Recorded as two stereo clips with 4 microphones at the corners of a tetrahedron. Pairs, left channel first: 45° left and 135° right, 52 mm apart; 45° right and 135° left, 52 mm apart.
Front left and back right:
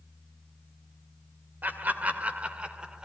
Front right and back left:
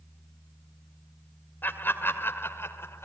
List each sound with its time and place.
1.6 s laughter: 85° right, 2 m; by 3.0 s 65° right, 2 m